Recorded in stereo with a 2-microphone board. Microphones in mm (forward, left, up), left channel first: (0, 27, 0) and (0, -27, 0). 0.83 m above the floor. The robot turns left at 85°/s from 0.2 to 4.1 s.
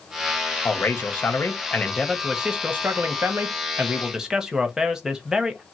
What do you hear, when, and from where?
0.7 s a man speaking: 130° left, 0.7 m; by 5.6 s 165° right, 0.7 m